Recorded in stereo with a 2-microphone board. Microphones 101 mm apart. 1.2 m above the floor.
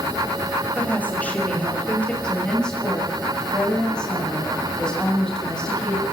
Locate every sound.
0.8 s a woman speaking: 15° left (ahead or behind), 6 m
2.2 s a woman speaking: 5° left (ahead or behind), 8.5 m